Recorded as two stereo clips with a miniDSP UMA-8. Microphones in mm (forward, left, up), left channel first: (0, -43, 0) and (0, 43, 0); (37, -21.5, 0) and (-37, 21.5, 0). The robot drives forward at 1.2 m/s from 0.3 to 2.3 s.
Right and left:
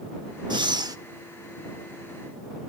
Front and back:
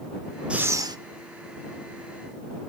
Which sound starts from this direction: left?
Breathing, at 0.5 s.